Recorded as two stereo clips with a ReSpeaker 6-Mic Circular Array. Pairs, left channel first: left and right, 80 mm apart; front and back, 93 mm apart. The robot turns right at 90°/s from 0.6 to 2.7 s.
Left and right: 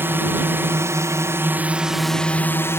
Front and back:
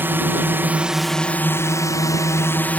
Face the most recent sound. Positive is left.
turn(degrees=60)